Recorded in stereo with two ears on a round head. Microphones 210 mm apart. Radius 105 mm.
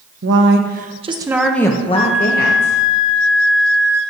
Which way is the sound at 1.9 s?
5° right (ahead or behind).